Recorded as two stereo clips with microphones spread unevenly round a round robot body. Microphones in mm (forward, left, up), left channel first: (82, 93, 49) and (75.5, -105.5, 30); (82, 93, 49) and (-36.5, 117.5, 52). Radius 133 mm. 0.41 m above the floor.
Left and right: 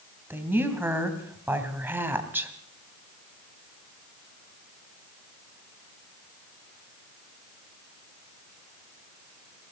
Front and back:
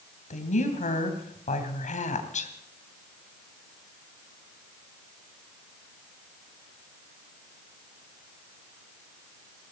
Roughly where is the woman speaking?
Ahead.